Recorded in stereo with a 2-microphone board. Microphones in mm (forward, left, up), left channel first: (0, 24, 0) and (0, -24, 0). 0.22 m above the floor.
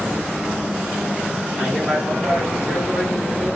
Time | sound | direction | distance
1.6 | a man speaking | 10° right (ahead or behind) | 1.7 m